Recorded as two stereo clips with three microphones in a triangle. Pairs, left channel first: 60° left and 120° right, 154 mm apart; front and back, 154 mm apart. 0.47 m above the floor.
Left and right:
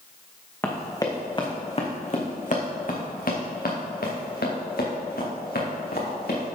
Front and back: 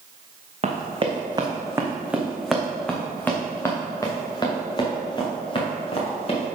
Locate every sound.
0.6 s running footsteps: 135° left, 2 m; by 6.5 s 50° left, 4.5 m